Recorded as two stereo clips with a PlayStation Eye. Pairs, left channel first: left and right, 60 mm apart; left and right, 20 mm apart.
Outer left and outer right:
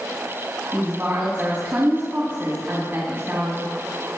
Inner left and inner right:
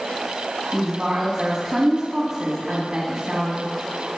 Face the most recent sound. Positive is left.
turn(degrees=-40)  # may be behind; listen again after turning